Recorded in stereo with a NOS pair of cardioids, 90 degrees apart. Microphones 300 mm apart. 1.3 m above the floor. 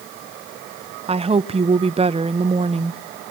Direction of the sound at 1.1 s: 20° right.